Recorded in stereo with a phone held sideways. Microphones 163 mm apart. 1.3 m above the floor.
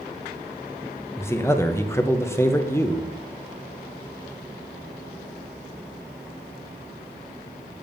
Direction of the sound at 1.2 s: 15° left (ahead or behind).